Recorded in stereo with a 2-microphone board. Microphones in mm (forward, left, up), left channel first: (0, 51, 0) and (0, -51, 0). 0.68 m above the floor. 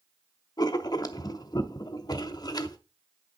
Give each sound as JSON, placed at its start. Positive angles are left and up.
{"t": 0.6, "sound": "writing", "side_deg": 40, "distance_m": 0.6}